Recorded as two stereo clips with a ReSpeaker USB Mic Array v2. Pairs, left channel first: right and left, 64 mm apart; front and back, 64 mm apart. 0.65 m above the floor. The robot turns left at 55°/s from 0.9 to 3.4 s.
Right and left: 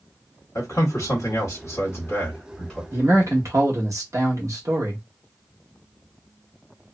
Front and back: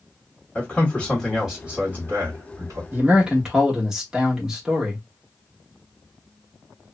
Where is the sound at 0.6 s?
75° right, 1.3 m; by 2.8 s straight behind, 1.3 m.